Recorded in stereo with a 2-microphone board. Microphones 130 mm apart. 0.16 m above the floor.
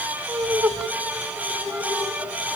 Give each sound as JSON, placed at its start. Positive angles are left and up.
{"t": 0.3, "sound": "laughter", "side_deg": -10, "distance_m": 1.2}